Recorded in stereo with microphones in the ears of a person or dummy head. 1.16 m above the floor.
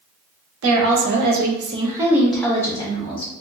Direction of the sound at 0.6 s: 80° right.